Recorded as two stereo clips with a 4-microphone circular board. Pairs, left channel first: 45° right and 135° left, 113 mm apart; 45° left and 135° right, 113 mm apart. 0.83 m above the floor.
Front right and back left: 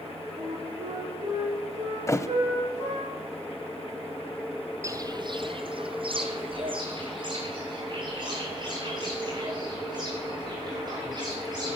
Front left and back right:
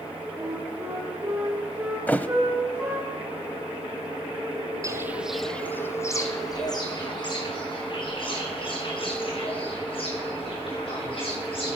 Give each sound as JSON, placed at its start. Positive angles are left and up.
{"t": 0.3, "sound": "a flute", "azimuth_deg": 165, "distance_m": 6.0}
{"t": 2.1, "sound": "a thud", "azimuth_deg": -15, "distance_m": 0.7}
{"t": 4.8, "sound": "footsteps", "azimuth_deg": -175, "distance_m": 1.0}